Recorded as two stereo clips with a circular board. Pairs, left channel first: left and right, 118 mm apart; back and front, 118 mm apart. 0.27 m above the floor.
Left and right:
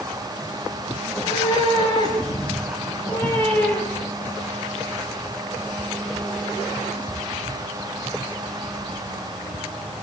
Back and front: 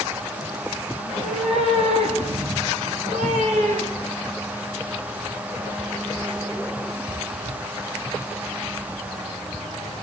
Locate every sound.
1.0 s a cat meowing: 40° left, 9.5 m; by 4.2 s 10° left, 8.5 m